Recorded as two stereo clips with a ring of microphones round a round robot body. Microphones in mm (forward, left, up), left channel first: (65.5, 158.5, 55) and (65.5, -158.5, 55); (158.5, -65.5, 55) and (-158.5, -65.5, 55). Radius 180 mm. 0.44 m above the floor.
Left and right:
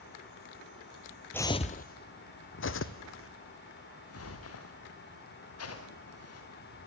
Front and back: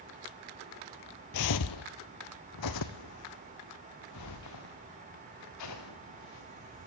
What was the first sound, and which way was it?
Footsteps, 5° left.